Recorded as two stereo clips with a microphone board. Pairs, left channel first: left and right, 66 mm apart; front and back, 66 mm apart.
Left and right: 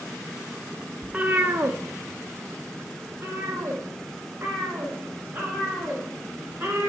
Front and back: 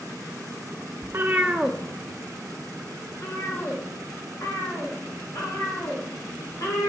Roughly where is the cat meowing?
Behind.